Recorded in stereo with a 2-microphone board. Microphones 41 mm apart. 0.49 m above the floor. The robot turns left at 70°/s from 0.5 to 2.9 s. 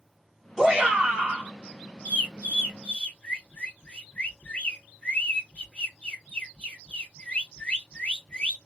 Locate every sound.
0.6 s a shout: 15° right (ahead or behind), 1.4 m; by 1.5 s 25° right (ahead or behind), 1.4 m
2.0 s a bird: 35° left (ahead or behind), 1.7 m; by 8.6 s 30° left (ahead or behind), 1.7 m